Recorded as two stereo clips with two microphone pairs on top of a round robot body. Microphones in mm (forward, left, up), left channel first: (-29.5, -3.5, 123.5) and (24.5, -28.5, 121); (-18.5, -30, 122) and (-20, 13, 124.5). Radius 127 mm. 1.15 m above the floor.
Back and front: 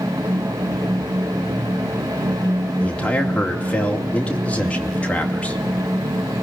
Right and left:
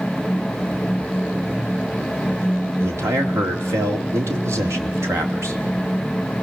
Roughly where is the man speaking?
Left.